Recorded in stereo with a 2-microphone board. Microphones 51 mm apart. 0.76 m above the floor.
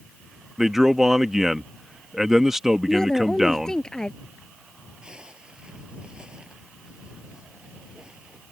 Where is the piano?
I don't hear a piano.